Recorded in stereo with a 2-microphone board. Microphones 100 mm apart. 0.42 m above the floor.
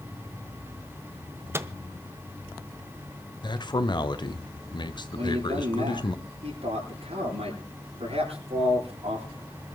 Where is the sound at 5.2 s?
75° right (ahead or behind), 9 m.